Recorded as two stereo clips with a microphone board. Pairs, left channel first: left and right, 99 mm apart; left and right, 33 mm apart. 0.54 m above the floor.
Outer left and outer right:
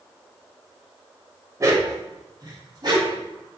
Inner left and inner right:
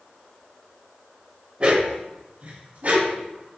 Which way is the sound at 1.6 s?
30° right (ahead or behind).